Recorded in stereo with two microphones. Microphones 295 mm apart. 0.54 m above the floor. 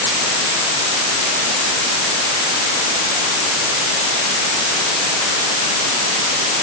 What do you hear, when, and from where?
Only background noise.